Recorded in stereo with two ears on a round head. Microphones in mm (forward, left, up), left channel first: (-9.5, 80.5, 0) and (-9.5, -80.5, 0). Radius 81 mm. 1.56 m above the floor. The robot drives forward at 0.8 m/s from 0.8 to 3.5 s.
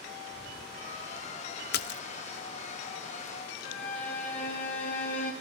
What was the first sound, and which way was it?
A splash, 55° left (ahead or behind).